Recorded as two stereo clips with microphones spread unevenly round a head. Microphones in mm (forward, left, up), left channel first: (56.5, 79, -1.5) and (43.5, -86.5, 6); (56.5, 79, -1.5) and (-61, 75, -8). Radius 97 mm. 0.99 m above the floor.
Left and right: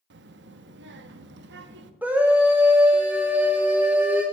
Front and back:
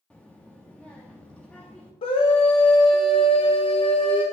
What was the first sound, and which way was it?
A child speaking, 85° right.